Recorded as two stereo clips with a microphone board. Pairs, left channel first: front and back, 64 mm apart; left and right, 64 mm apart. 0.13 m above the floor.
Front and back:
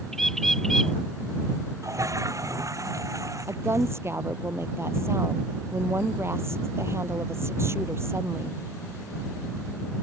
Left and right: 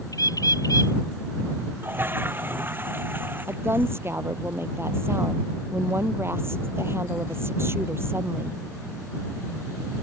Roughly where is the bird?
Left.